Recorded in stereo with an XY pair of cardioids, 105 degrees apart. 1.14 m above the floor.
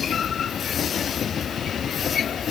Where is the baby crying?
I don't hear a baby crying.